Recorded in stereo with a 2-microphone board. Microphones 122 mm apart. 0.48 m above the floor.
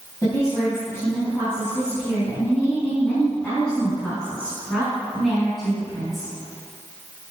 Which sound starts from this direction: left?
A woman speaking, at 0.2 s.